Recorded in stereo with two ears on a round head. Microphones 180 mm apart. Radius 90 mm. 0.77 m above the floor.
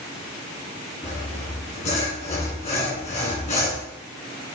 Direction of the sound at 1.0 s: 35° left (ahead or behind).